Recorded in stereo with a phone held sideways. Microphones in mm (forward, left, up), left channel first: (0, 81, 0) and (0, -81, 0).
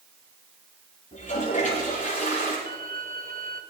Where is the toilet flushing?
50° left (ahead or behind), 9 m.